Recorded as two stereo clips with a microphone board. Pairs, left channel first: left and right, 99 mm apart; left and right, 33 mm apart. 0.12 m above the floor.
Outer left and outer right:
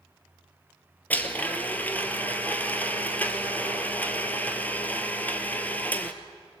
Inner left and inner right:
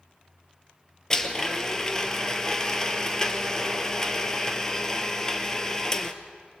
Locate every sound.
1.1 s a blender: 15° left (ahead or behind), 1.2 m